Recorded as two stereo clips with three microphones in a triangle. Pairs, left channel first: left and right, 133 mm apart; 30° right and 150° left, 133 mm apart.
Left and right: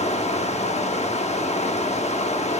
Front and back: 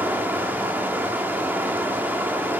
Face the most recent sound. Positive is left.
turn(degrees=80)